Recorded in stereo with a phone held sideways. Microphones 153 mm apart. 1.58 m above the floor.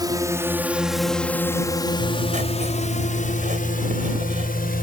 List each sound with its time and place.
0.0 s a drone: 25° right (ahead or behind); by 4.8 s 75° left (ahead or behind)
2.0 s writing: 60° right (ahead or behind)